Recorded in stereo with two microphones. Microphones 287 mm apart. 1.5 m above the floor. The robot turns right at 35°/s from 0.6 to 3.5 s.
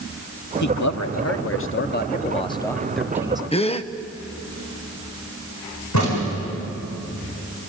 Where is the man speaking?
95° left, 1.0 m; by 3.4 s 165° right, 1.0 m.